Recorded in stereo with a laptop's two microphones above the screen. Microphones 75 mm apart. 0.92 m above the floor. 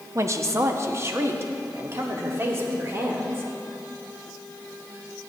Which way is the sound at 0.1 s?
40° right (ahead or behind).